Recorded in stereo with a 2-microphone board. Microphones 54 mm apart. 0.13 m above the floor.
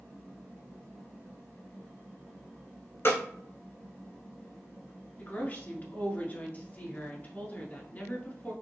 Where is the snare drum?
45° left (ahead or behind), 1.7 m.